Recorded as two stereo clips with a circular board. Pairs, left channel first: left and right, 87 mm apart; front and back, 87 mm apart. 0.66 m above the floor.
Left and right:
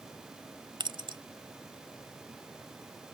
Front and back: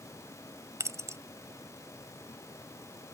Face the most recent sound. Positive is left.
turn(degrees=-125)